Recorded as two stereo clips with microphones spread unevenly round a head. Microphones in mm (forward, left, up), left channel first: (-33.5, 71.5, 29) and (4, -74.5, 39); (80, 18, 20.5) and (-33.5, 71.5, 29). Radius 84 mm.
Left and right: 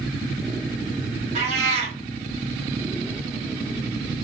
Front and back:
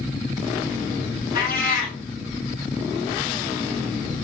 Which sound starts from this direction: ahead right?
A cat meowing, at 1.4 s.